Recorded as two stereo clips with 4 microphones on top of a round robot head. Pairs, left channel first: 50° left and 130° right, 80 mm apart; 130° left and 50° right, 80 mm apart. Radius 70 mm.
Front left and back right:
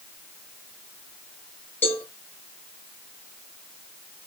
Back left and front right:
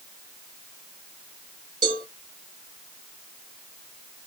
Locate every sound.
1.8 s a cowbell: 15° right, 5.5 m